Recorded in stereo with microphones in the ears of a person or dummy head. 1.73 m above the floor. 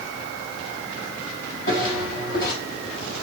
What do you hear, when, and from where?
1.7 s footsteps: 55° left (ahead or behind), 4.5 m